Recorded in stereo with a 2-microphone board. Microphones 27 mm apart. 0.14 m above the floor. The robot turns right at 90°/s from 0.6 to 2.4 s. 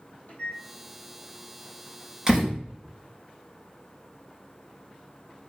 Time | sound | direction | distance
0.3 | a microwave | 70° left (ahead or behind) | 4.5 m
2.3 | a door slam | 25° right (ahead or behind) | 3 m